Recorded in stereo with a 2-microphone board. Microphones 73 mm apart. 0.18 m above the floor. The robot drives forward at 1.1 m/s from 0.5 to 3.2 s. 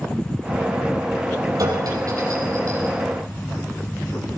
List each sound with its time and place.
1.6 s a clink: 55° right (ahead or behind), 4 m; by 3.0 s 40° right (ahead or behind), 5 m